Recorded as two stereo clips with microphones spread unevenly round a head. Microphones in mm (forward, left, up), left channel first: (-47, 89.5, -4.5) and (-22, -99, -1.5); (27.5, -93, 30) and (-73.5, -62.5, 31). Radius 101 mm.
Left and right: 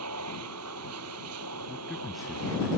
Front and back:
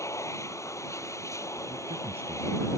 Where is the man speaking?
170° right.